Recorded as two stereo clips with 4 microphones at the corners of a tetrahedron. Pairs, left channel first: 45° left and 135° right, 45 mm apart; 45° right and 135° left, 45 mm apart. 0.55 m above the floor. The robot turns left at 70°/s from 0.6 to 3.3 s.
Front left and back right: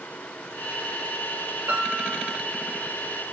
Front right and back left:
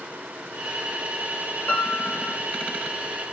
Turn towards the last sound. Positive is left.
turn(degrees=150)